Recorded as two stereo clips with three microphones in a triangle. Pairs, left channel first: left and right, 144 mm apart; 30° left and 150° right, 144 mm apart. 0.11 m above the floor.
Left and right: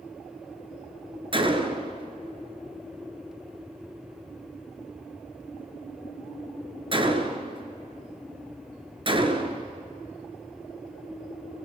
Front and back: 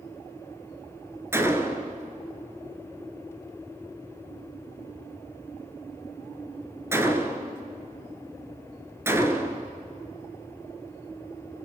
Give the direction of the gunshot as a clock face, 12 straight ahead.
3 o'clock.